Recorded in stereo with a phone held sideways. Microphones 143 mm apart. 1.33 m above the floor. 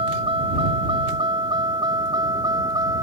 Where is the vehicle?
40° right (ahead or behind); by 3.0 s 25° right (ahead or behind).